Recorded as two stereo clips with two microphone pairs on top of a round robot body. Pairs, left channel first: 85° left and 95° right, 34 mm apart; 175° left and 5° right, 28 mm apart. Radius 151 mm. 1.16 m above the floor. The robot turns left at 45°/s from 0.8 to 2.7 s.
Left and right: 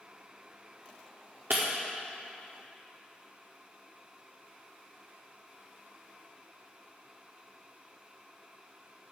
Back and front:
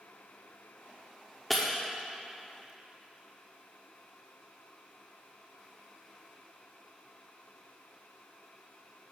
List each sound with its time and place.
1.5 s breaking glass: 100° right, 0.9 m; by 1.7 s 110° right, 0.9 m